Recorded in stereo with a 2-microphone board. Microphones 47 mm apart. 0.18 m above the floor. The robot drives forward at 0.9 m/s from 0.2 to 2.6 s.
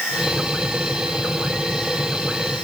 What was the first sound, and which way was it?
Only background noise.